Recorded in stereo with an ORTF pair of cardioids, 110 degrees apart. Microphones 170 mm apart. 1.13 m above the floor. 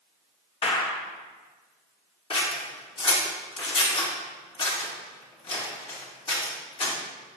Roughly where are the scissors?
Ahead left.